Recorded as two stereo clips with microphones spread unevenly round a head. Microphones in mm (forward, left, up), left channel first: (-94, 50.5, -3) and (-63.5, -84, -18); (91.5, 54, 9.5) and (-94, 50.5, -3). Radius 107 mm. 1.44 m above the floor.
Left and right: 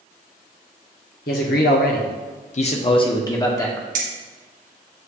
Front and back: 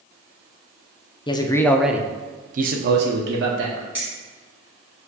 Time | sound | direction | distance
1.3 | a man speaking | 70° left | 0.7 m
4.0 | keys jangling | 95° right | 0.8 m